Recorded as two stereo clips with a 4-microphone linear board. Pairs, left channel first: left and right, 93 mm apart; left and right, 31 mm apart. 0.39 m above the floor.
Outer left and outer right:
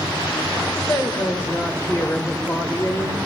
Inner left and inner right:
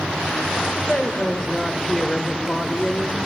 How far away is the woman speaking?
About 1.5 m.